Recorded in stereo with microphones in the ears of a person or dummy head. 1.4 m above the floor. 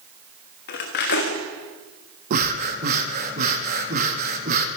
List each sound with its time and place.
0.7 s cutlery clinking: 50° left (ahead or behind), 1.3 m
2.3 s breathing: 50° right (ahead or behind), 1.2 m